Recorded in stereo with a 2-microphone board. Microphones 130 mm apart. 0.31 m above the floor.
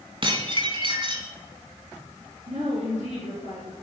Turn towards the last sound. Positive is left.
turn(degrees=-70)  # may be behind; listen again after turning